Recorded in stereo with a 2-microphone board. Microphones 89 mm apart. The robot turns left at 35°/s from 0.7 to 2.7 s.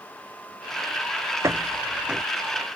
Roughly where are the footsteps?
Right.